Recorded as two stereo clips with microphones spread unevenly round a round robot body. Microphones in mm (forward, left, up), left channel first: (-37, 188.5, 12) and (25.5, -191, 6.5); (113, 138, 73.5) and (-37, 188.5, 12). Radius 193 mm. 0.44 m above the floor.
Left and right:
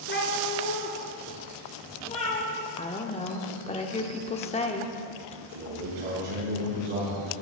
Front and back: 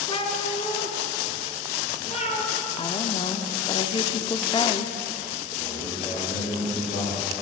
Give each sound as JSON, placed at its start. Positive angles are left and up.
{"t": 0.1, "sound": "a cat meowing", "azimuth_deg": 35, "distance_m": 1.4}
{"t": 2.8, "sound": "a woman speaking", "azimuth_deg": 55, "distance_m": 0.7}
{"t": 5.5, "sound": "a man speaking", "azimuth_deg": -70, "distance_m": 4.5}